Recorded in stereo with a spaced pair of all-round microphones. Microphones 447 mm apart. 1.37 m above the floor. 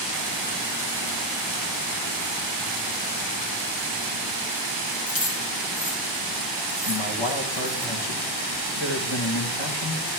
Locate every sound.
5.1 s keys jangling: 45° left (ahead or behind), 2.5 m; by 7.8 s 50° left (ahead or behind), 6.5 m
6.8 s a man speaking: 70° left (ahead or behind), 1.8 m